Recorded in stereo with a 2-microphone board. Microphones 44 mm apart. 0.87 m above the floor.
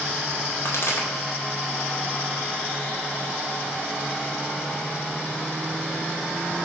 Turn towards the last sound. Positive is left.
turn(degrees=65)  # may be behind; listen again after turning